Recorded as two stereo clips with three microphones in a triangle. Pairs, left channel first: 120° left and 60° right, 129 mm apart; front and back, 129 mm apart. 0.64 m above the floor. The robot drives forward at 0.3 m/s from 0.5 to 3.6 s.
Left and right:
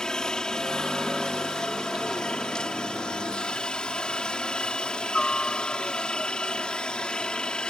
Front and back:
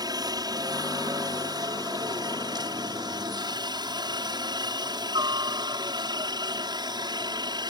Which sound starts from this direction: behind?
A helicopter, at 0.0 s.